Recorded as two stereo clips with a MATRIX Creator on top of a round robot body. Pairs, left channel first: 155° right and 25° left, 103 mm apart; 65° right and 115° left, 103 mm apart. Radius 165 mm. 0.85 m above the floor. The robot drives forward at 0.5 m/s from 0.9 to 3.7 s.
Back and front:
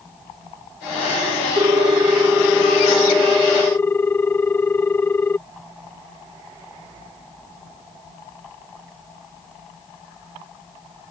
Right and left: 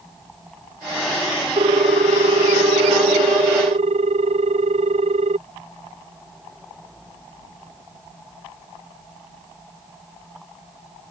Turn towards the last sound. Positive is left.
turn(degrees=130)